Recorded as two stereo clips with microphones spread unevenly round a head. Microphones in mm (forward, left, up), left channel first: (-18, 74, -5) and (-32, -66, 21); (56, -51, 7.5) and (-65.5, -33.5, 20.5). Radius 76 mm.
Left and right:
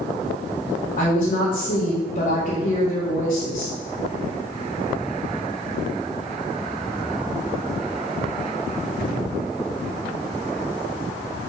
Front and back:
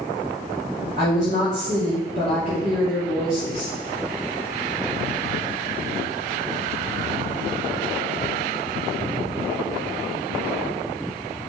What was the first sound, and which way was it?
A woman speaking, 130° left.